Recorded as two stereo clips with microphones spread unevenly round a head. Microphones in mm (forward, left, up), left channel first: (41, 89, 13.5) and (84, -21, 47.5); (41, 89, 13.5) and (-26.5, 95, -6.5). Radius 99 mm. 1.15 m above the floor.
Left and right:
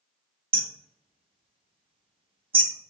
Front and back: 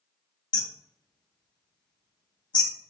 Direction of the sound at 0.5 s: 25° right.